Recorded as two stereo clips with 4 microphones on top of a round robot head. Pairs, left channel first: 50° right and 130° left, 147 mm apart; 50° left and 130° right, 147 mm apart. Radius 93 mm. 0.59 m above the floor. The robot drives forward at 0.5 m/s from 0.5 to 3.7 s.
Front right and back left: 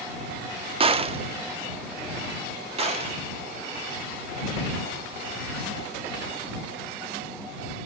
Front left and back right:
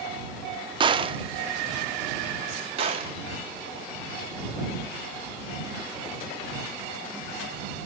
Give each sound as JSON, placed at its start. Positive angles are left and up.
{"t": 0.8, "sound": "a gunshot", "azimuth_deg": 175, "distance_m": 0.6}